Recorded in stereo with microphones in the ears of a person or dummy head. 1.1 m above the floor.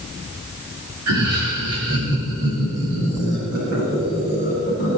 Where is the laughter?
80° right, 2.5 m; by 5.0 s 70° right (ahead or behind), 9 m.